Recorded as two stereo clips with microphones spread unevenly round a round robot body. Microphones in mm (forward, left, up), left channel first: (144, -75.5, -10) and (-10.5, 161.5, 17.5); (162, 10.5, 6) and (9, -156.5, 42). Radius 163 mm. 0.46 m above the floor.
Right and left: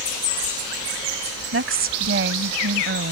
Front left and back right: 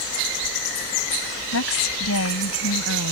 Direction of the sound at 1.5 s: 75° left.